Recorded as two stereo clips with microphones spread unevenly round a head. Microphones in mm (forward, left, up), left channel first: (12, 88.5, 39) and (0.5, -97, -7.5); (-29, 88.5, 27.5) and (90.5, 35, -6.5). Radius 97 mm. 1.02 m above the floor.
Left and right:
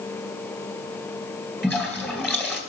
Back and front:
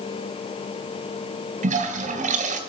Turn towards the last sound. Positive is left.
turn(degrees=5)